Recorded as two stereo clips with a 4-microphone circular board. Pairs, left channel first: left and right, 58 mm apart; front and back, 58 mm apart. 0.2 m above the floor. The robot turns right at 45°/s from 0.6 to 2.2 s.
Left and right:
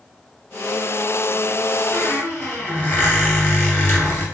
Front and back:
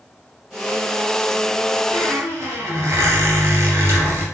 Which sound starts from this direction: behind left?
A squeak, at 1.9 s.